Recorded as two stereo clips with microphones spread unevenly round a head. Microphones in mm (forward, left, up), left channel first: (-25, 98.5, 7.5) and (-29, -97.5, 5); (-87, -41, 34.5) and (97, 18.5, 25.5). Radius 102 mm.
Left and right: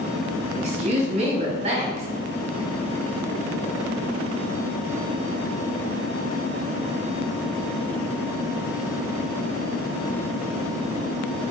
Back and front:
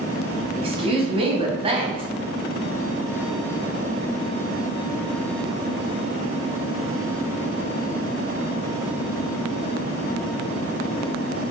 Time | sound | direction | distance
0.6 | a woman speaking | 35° right | 1.3 m